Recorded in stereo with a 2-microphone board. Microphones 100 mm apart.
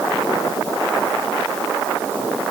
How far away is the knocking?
I don't hear knocking.